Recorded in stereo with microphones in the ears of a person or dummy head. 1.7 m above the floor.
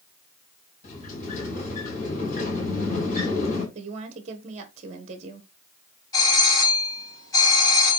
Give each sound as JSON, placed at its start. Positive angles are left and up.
{"t": 0.8, "sound": "a sliding door", "side_deg": 40, "distance_m": 3.5}
{"t": 3.8, "sound": "a woman speaking", "side_deg": -40, "distance_m": 1.2}
{"t": 6.1, "sound": "a doorbell", "side_deg": 20, "distance_m": 4.5}